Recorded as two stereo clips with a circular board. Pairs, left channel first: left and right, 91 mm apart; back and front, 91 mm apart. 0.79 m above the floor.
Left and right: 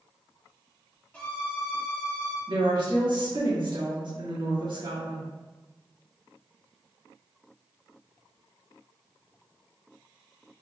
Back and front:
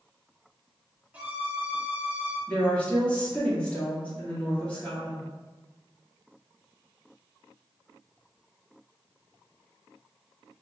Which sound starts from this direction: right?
A woman speaking, at 2.5 s.